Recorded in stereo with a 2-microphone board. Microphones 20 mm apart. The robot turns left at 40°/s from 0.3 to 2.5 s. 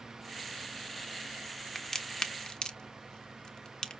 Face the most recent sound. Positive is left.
turn(degrees=40)  # may be behind; listen again after turning